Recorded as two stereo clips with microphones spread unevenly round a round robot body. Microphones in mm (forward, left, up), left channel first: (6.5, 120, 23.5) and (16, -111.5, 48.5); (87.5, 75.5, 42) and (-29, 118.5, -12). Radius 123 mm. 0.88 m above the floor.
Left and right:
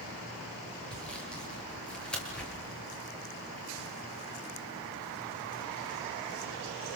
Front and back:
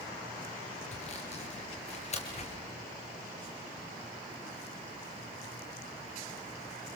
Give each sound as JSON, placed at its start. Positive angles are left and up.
{"t": 0.9, "sound": "sawing", "azimuth_deg": 5, "distance_m": 6.0}